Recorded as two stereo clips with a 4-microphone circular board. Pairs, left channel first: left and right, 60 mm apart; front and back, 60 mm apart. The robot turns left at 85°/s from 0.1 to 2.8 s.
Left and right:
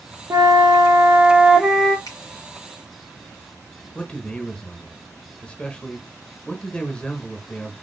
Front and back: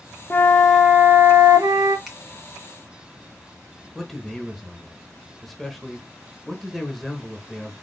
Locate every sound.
0.3 s a flute: 55° right, 0.9 m; by 2.0 s 160° left, 0.9 m
2.1 s a finger snap: 95° left, 2 m; by 2.2 s 85° left, 2 m
4.0 s a man speaking: 85° left, 0.9 m